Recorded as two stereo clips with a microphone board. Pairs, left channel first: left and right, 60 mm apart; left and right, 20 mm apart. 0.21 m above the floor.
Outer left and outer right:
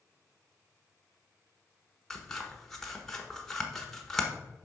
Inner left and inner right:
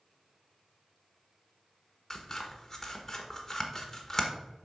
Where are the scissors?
10° left (ahead or behind), 1.1 m.